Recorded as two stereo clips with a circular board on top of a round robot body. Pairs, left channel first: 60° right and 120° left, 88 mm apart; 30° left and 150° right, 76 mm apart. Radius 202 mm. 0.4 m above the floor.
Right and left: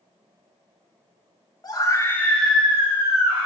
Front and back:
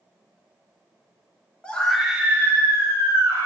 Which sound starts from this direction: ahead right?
A scream, at 1.6 s.